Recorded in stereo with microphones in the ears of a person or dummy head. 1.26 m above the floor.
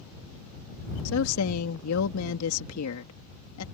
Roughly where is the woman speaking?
Left.